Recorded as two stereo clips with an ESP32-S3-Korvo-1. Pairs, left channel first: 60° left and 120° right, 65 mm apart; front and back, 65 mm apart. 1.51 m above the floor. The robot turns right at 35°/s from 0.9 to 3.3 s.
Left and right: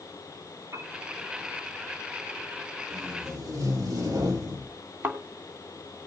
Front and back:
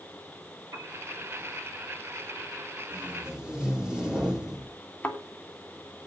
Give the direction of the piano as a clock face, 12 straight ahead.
5 o'clock.